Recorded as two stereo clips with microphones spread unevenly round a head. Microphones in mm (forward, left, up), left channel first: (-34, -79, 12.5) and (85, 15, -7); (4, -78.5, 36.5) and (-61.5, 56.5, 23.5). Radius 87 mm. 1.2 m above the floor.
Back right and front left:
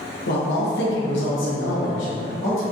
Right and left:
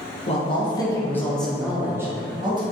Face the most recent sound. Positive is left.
turn(degrees=175)